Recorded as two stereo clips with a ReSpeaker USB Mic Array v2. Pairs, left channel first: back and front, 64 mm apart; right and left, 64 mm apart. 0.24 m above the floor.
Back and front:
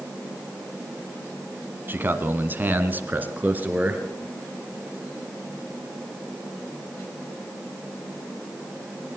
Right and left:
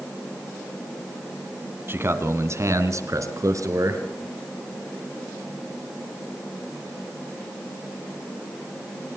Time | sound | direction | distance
1.9 | a man speaking | 50° left | 1.9 m